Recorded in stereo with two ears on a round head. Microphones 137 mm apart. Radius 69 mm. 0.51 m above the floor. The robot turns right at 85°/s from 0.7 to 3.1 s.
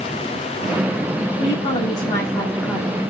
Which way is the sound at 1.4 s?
25° left (ahead or behind).